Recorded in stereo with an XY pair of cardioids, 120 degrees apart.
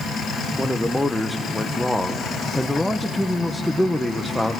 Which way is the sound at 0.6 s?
5° left.